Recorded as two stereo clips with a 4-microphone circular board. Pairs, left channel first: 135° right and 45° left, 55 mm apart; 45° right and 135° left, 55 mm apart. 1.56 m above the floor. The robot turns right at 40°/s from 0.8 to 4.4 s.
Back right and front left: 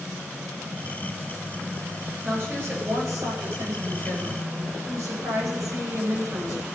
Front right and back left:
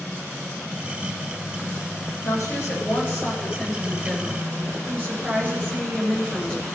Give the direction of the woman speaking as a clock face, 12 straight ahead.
1 o'clock.